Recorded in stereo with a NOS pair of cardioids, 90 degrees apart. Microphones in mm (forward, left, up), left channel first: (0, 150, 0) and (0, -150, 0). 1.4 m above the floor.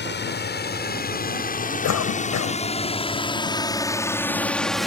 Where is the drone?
35° left; by 4.9 s straight ahead.